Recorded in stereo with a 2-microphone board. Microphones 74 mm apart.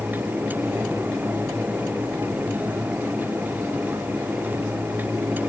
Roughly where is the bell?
I don't hear a bell.